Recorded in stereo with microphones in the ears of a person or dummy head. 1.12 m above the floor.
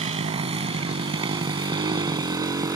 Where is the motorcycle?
35° right (ahead or behind); by 2.8 s 20° right (ahead or behind).